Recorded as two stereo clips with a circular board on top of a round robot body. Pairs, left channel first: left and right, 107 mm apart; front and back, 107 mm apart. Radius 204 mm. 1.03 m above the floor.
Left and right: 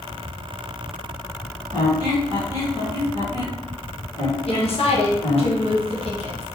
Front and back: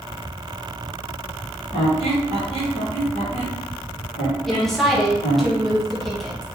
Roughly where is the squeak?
Ahead left.